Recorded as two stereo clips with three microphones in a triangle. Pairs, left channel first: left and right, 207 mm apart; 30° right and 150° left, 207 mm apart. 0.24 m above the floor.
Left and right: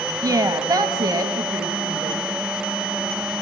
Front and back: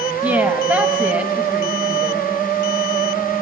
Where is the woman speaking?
140° right, 1.2 m.